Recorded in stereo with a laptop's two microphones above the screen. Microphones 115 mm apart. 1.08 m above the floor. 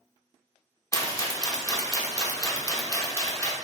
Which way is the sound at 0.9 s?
25° left (ahead or behind).